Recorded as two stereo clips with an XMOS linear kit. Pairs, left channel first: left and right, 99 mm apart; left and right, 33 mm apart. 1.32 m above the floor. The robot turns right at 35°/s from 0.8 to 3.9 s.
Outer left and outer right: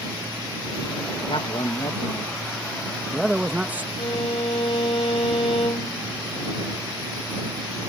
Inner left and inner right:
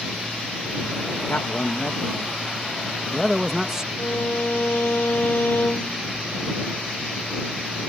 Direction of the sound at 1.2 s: 110° left.